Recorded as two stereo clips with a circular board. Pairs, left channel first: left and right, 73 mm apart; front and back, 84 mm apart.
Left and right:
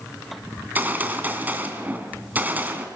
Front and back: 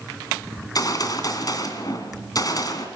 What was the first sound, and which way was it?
A gunshot, 30° right.